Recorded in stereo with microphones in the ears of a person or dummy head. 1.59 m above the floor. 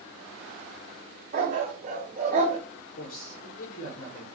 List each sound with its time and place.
1.3 s a dog barking: 40° right (ahead or behind), 3 m
3.0 s a man speaking: 50° left (ahead or behind), 1.2 m